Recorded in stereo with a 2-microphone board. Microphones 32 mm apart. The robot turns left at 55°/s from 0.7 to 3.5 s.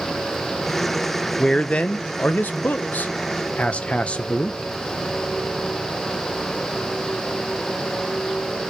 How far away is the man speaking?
About 0.8 m.